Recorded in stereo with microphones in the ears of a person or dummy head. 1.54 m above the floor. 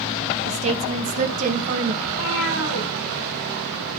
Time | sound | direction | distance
0.5 | a woman speaking | 35° right (ahead or behind) | 1.3 m
2.0 | a cat meowing | 75° left (ahead or behind) | 5 m